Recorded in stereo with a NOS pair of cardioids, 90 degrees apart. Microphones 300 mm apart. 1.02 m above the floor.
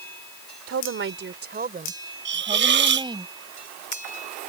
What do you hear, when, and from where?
0.7 s a woman speaking: 50° right; by 3.2 s 15° right
2.2 s a hiss: 40° right